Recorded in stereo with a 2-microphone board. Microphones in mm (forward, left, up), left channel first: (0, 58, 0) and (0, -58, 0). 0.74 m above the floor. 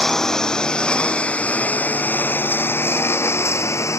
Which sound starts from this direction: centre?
A lawn mower, at 0.0 s.